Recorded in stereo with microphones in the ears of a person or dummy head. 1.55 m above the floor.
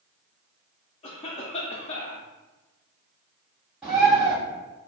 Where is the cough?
25° left (ahead or behind), 0.6 m.